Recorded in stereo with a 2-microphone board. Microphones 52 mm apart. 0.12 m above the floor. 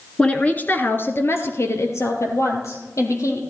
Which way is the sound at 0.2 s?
15° left (ahead or behind).